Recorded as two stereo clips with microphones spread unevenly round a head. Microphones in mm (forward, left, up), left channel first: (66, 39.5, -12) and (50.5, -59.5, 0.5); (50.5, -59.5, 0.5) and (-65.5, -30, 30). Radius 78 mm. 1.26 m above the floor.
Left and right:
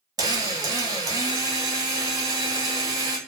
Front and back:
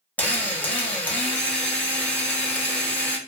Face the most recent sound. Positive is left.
turn(degrees=-100)